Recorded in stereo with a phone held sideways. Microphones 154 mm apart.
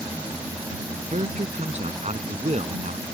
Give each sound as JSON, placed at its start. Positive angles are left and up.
{"t": 0.0, "sound": "a fan", "side_deg": -10}
{"t": 1.1, "sound": "a man speaking", "side_deg": -45}